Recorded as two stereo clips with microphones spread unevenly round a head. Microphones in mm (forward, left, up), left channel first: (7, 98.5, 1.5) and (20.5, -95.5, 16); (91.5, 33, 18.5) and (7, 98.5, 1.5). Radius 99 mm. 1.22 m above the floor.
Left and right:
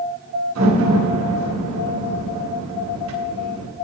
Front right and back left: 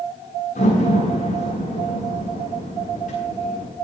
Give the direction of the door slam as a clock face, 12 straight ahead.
2 o'clock.